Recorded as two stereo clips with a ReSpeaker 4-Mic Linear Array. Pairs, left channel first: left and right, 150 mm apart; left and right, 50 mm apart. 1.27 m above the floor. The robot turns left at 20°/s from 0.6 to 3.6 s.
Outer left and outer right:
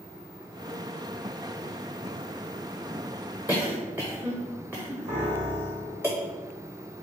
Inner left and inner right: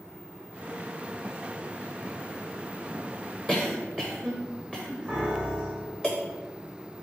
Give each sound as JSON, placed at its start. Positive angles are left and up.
{"t": 3.5, "sound": "a cough", "side_deg": -10, "distance_m": 0.8}
{"t": 5.1, "sound": "a piano", "side_deg": -45, "distance_m": 2.5}